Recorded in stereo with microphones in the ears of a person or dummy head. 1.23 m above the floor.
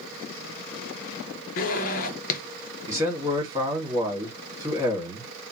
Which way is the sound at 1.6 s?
45° left (ahead or behind).